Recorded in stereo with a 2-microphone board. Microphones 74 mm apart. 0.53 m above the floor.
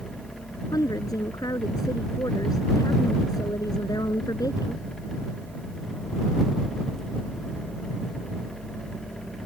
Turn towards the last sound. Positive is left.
turn(degrees=55)  # may be behind; listen again after turning